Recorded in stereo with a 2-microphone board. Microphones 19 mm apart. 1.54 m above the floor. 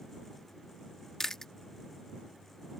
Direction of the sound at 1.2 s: 25° left (ahead or behind).